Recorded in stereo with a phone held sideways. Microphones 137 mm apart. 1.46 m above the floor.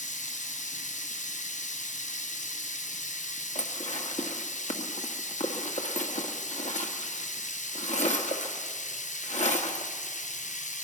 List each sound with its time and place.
0.0 s running water: 65° left (ahead or behind), 0.9 m
3.5 s dishes clattering: 55° left (ahead or behind), 1.6 m